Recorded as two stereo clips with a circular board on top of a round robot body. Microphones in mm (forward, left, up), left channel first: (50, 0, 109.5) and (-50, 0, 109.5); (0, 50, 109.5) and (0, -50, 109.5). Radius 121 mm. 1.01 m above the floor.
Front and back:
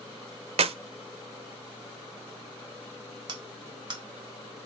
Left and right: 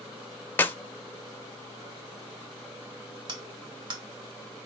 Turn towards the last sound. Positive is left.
turn(degrees=-135)